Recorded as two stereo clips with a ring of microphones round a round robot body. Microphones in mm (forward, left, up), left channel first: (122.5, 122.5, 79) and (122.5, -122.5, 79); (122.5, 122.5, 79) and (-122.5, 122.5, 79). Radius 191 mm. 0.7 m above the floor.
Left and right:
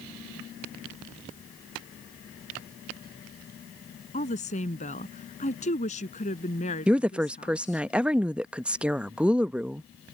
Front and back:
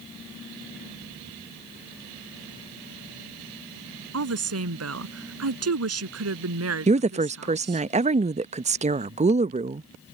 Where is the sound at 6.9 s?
170° right.